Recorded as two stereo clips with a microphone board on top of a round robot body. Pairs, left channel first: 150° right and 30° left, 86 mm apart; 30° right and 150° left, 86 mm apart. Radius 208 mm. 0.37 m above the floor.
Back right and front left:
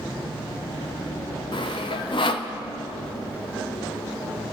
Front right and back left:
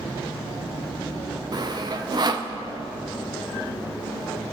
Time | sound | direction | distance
1.5 | sawing | 170° right | 0.9 m